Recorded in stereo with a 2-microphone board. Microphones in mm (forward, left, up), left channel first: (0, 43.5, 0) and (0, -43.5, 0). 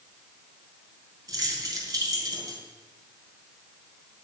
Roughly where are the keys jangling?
Right.